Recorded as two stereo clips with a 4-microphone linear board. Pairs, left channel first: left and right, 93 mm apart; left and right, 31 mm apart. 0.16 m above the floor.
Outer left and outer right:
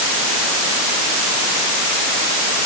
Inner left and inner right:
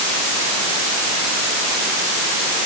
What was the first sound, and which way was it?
Only background noise.